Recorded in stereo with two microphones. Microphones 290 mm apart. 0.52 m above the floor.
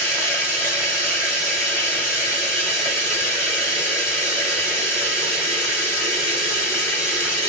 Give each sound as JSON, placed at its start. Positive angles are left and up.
{"t": 0.0, "sound": "running water", "side_deg": -5, "distance_m": 1.1}